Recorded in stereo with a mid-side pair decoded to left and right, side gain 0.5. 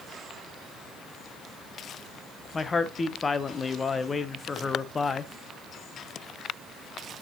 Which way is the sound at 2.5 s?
30° left.